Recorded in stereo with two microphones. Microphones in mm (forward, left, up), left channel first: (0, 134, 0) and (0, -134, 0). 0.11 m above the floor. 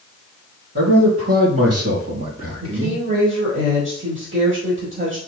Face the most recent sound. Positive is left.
turn(degrees=-45)  # may be behind; listen again after turning